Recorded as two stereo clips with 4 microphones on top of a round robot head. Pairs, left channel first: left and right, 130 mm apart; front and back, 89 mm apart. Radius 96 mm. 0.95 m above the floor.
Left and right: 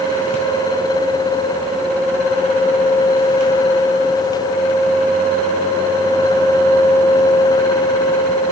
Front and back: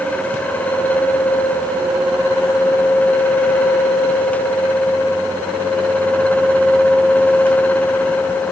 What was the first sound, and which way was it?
Only background noise.